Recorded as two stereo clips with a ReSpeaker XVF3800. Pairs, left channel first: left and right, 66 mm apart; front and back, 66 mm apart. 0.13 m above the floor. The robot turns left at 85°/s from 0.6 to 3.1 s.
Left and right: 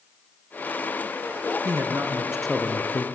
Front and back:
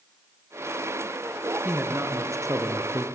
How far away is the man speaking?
About 2.5 m.